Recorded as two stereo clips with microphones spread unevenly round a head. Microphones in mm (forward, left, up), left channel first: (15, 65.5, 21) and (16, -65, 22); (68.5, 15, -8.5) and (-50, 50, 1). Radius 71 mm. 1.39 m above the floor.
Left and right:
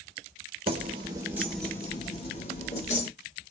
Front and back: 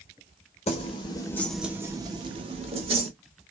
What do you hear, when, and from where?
0.7 s keys jangling: 50° right, 0.9 m; by 3.1 s 130° left, 1.5 m